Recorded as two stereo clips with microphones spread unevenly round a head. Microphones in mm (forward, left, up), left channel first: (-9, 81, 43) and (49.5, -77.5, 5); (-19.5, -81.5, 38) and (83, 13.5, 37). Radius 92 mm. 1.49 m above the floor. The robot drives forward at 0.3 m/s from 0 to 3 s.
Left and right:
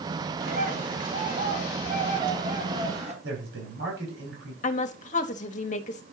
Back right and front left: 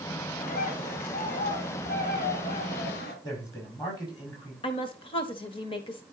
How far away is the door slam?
I don't hear a door slam.